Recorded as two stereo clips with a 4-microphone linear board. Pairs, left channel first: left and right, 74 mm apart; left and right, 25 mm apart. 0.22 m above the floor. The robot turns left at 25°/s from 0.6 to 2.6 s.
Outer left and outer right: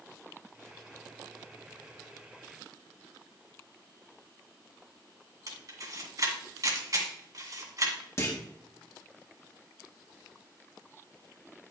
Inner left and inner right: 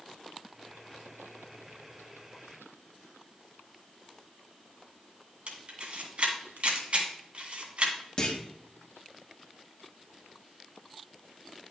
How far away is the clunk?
About 1.9 m.